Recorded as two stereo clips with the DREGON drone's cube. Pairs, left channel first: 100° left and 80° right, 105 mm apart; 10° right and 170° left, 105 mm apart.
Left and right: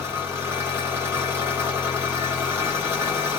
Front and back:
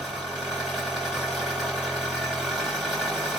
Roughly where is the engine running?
Right.